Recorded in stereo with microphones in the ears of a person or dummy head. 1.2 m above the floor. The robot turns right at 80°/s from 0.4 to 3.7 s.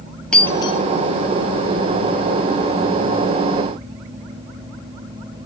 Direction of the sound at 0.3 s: 5° left (ahead or behind).